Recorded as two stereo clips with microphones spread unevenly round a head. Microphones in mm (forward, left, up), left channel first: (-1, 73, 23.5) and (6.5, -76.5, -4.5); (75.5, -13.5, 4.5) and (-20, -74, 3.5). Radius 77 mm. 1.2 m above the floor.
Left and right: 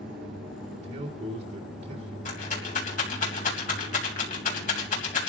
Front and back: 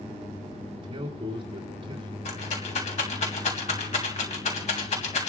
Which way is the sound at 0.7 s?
100° right.